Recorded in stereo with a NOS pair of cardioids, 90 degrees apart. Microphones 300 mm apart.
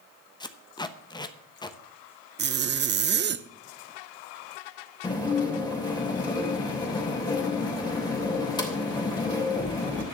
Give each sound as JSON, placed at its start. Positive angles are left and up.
{"t": 0.4, "sound": "tape being pulled", "azimuth_deg": 15, "distance_m": 1.1}
{"t": 2.4, "sound": "a zipper", "azimuth_deg": -35, "distance_m": 0.7}
{"t": 5.0, "sound": "dishes clattering", "azimuth_deg": 15, "distance_m": 3.0}